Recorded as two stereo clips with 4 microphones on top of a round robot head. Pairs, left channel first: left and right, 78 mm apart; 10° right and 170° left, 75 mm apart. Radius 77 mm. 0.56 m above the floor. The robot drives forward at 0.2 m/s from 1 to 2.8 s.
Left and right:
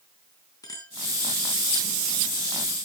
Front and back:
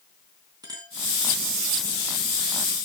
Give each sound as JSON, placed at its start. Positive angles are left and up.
{"t": 0.6, "sound": "a clink", "azimuth_deg": 135, "distance_m": 4.0}